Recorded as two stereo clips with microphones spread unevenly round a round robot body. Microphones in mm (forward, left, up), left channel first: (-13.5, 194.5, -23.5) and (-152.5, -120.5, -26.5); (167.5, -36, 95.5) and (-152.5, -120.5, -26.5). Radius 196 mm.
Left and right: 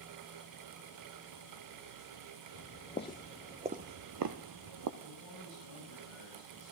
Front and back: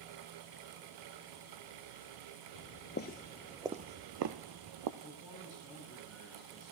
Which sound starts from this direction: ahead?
Footsteps, at 2.5 s.